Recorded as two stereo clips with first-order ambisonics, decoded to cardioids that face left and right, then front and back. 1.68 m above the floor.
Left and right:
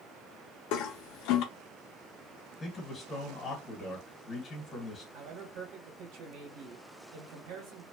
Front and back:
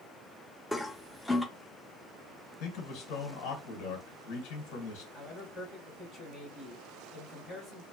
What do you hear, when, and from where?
0.7 s a toilet flushing: 85° left, 0.5 m
2.6 s a man speaking: 15° left, 1.5 m
5.1 s a man speaking: 95° right, 1.5 m